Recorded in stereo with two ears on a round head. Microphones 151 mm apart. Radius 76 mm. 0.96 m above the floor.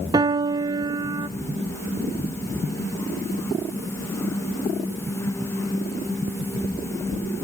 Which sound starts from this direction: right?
A piano, at 0.1 s.